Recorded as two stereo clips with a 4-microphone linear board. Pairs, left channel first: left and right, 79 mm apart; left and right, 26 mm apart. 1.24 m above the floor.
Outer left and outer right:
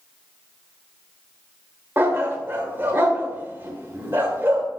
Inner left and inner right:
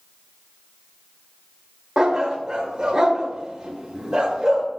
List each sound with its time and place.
2.0 s a dog barking: 30° right (ahead or behind), 1.3 m